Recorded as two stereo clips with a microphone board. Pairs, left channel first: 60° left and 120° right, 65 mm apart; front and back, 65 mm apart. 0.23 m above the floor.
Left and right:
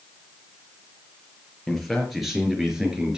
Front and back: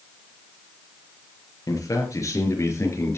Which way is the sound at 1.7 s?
25° right.